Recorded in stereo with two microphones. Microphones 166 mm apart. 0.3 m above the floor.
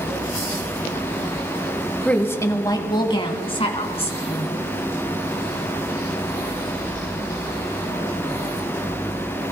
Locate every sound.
2.0 s a woman speaking: 5° left (ahead or behind), 1.3 m; by 4.5 s 40° left (ahead or behind), 3.5 m